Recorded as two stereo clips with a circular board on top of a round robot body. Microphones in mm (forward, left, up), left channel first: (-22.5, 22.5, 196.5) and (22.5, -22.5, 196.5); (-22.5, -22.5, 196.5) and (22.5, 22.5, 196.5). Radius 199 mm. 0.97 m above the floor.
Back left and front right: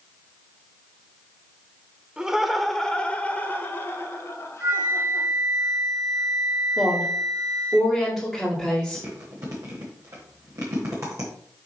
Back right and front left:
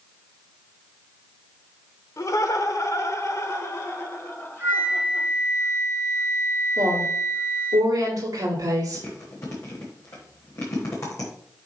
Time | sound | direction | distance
2.2 | laughter | 120° right | 1.4 m
4.6 | a flute | 15° right | 4.5 m
6.8 | a woman speaking | 40° left | 2.5 m
8.9 | chewing | 90° right | 1.1 m